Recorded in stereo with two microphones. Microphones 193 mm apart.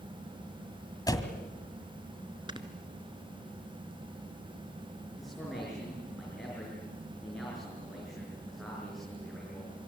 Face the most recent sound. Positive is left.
turn(degrees=0)  # may be behind; listen again after turning